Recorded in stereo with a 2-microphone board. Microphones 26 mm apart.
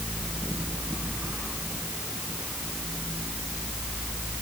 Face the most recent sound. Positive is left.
No sound to turn to.